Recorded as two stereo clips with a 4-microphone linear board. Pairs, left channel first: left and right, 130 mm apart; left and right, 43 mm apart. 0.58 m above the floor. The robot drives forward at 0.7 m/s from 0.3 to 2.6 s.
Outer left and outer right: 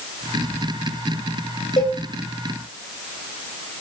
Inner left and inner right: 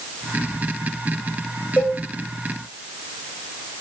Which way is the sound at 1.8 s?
65° left (ahead or behind).